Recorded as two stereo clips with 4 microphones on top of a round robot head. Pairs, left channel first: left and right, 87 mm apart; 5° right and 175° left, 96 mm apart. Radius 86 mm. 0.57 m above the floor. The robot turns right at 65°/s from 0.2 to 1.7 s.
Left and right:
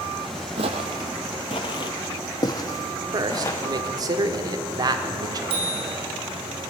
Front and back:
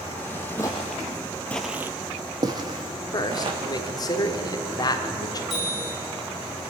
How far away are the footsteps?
About 1.1 m.